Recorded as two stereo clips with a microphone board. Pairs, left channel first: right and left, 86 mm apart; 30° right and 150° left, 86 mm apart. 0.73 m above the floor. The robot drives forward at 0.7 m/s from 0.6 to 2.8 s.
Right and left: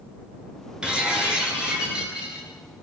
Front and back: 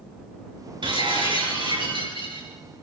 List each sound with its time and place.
0.8 s breaking glass: 170° left, 7 m